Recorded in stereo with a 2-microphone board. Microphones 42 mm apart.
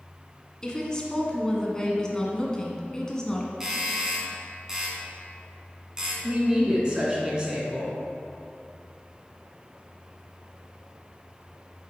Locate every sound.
0.6 s a woman speaking: 20° left (ahead or behind), 1.3 m
3.6 s a doorbell: 15° right (ahead or behind), 1.7 m
6.2 s a woman speaking: 25° right (ahead or behind), 2 m